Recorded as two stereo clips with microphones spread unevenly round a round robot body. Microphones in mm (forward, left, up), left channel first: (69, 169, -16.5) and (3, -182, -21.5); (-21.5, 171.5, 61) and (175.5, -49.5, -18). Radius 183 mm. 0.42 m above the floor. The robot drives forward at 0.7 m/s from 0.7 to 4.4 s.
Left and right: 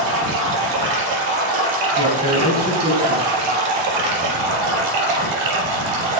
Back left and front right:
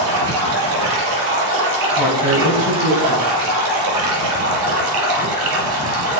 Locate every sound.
0.0 s running water: 70° right, 5 m; by 6.2 s 100° right, 4.5 m
2.0 s a woman speaking: 175° right, 3 m